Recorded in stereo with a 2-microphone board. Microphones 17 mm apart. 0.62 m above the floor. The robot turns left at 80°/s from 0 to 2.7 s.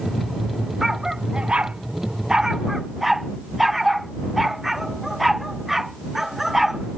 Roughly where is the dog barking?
Centre.